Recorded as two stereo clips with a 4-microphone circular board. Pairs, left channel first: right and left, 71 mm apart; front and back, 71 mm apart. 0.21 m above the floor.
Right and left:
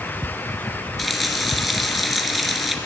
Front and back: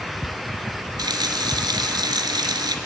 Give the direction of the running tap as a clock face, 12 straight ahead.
6 o'clock.